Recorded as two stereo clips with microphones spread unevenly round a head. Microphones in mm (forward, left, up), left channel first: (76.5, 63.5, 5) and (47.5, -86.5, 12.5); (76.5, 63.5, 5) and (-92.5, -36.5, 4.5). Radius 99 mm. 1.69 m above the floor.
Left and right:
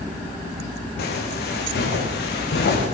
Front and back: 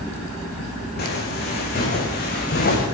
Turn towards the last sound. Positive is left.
turn(degrees=70)